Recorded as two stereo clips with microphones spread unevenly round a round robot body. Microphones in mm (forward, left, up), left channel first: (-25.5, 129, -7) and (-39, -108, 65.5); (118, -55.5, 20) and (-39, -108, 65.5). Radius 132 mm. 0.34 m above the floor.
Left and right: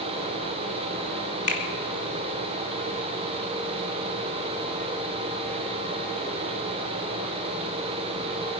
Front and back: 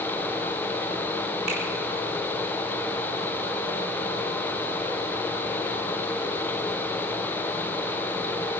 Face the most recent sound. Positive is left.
turn(degrees=135)